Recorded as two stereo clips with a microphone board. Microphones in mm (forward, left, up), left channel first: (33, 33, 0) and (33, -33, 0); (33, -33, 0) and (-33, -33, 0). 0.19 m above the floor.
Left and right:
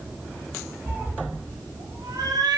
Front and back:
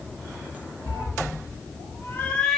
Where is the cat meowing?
10° right, 1.1 m; by 2.6 s 85° right, 0.7 m.